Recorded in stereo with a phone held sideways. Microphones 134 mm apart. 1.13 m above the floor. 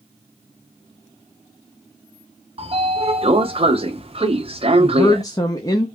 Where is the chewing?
I don't hear chewing.